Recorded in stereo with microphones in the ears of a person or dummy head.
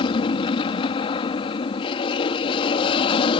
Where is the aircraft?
25° left (ahead or behind).